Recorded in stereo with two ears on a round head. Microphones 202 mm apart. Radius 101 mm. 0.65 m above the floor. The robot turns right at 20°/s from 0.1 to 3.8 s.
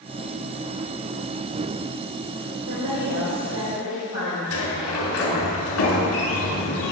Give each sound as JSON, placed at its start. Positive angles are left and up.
{"t": 2.7, "sound": "a woman speaking", "side_deg": -80, "distance_m": 2.5}
{"t": 4.5, "sound": "a sliding door", "side_deg": 80, "distance_m": 1.8}